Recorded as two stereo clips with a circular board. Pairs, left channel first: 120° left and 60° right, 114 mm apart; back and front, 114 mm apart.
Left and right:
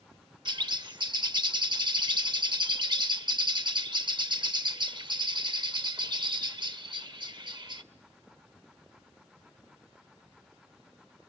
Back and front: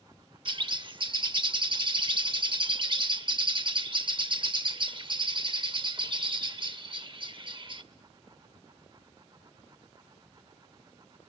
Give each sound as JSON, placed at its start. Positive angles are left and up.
{"t": 0.5, "sound": "a bird", "azimuth_deg": -25, "distance_m": 0.6}